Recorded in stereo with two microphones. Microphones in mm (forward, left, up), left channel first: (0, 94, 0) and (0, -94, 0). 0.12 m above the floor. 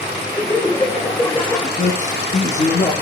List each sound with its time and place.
0.3 s laughter: 20° left (ahead or behind), 8 m
1.8 s a man speaking: 40° left (ahead or behind), 5 m